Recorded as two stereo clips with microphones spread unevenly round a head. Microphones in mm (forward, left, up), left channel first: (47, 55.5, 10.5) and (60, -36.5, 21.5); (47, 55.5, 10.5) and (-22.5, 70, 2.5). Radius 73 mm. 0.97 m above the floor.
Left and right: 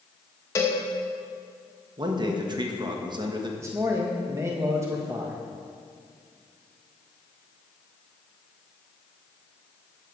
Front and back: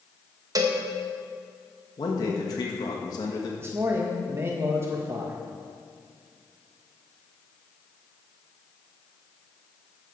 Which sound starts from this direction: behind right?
A man speaking, at 3.6 s.